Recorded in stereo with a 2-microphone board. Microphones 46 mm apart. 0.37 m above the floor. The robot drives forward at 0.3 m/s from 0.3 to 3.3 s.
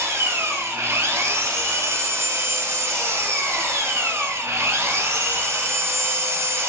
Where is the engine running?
70° right (ahead or behind), 3 m; by 6.7 s 85° right, 3 m.